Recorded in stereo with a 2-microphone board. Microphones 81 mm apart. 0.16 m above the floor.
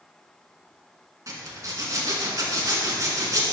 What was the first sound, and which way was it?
A zipper, 45° right (ahead or behind).